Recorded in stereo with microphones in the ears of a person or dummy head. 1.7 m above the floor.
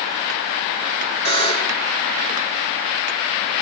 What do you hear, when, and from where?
1.2 s a buzzer: 25° left (ahead or behind), 3 m